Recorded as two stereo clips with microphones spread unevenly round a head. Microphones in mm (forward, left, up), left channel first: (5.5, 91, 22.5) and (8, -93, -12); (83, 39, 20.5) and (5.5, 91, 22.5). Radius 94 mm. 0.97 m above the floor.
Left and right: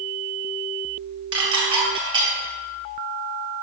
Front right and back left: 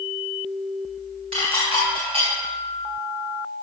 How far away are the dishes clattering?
About 2.5 m.